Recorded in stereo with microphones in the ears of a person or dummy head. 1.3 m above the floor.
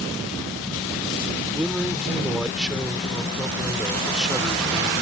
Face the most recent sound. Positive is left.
turn(degrees=0)  # may be behind; listen again after turning